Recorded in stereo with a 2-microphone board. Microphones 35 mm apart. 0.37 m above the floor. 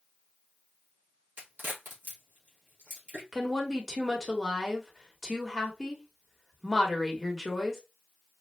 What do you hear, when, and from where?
1.4 s a crack: 50° right (ahead or behind), 3 m
3.3 s a woman speaking: 5° left (ahead or behind), 1.1 m